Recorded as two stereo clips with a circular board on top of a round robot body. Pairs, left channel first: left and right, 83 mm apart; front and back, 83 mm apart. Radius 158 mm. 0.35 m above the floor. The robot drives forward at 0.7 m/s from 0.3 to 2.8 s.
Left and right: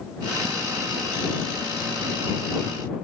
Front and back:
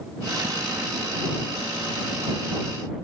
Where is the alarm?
No alarm in this recording.